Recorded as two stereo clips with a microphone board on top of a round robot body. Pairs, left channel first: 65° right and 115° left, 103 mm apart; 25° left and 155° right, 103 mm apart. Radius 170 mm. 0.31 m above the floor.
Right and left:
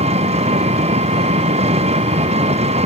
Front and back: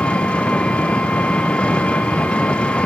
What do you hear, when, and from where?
0.0 s an engine running: 100° left